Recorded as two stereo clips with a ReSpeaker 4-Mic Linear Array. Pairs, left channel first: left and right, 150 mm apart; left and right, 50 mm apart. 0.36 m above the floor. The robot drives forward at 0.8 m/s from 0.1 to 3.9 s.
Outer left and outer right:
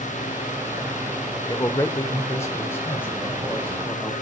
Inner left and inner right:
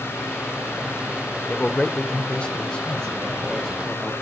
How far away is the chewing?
I don't hear chewing.